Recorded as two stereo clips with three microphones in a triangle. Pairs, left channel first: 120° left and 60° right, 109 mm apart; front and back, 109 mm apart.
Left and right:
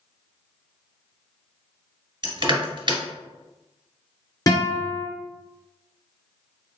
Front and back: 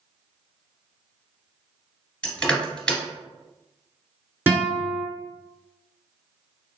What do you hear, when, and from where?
2.2 s crushing: 75° right, 2 m
4.5 s a guitar: 120° left, 1.9 m